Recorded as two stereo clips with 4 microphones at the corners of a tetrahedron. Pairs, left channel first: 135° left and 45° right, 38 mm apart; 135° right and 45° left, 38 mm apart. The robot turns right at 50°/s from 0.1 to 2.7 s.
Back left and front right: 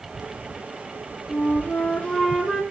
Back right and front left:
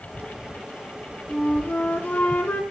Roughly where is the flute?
Behind.